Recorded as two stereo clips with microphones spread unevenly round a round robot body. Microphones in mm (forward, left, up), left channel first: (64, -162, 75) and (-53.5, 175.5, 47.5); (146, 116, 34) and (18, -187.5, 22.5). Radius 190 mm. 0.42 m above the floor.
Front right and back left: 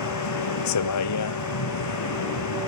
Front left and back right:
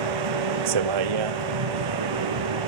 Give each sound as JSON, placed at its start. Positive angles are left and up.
{"t": 0.0, "sound": "a vehicle", "azimuth_deg": -115}